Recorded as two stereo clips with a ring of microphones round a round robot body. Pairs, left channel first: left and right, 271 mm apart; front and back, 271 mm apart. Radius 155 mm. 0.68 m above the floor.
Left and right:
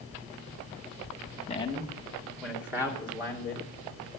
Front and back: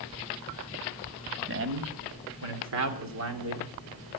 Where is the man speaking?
155° left, 1.7 m; by 3.7 s 160° right, 3 m.